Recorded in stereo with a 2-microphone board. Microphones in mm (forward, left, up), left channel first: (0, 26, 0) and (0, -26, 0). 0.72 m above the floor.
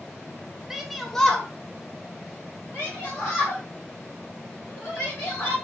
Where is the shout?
10° right (ahead or behind), 0.6 m; by 5.5 s 35° left (ahead or behind), 2.5 m.